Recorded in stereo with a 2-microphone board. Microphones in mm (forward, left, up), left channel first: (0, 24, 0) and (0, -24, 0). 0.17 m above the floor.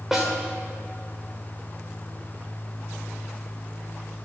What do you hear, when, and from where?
0.1 s a snare drum: 10° right (ahead or behind), 3 m